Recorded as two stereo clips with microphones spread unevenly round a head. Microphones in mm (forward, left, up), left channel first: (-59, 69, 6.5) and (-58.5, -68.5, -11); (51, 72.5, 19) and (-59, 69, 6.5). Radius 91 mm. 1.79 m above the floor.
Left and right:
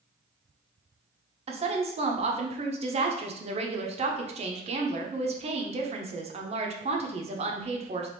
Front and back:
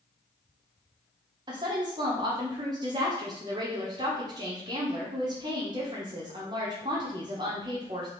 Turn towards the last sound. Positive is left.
turn(degrees=-120)